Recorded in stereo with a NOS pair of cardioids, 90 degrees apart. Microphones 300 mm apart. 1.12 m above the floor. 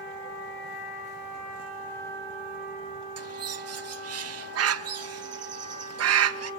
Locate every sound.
3.2 s a bird: 55° right, 1.2 m